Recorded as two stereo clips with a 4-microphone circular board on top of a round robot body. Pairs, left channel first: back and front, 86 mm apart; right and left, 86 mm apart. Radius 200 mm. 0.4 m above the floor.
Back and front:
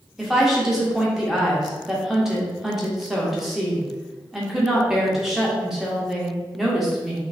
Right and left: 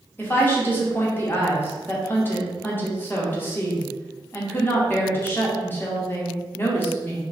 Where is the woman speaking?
80° right, 1.4 m.